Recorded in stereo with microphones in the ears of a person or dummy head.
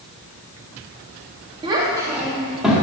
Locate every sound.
1.6 s a child speaking: 25° right (ahead or behind), 1.2 m; by 2.8 s centre (ahead or behind), 1.8 m